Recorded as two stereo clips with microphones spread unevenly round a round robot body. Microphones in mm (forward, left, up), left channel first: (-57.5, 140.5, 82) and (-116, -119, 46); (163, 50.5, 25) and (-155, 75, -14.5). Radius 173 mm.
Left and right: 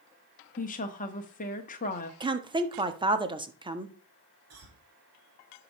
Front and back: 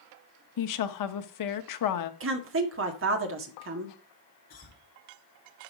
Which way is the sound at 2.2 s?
160° right.